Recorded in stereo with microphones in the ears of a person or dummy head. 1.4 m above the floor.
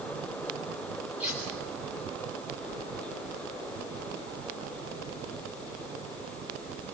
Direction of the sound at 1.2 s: 5° right (ahead or behind).